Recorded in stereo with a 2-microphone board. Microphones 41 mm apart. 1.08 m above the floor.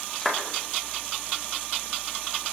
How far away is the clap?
About 2.5 m.